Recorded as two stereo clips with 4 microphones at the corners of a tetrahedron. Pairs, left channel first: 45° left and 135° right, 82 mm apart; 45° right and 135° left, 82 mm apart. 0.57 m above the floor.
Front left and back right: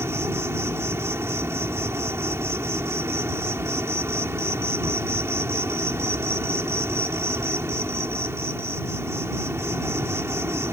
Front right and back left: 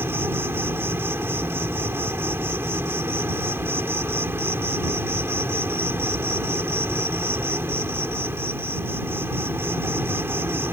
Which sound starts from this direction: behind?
An insect, at 0.0 s.